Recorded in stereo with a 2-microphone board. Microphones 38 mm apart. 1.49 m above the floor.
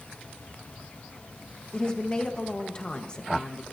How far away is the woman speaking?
About 1.2 m.